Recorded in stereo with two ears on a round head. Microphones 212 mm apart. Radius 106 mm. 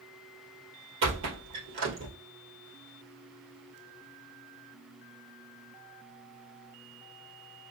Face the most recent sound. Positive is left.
turn(degrees=-55)  # may be behind; listen again after turning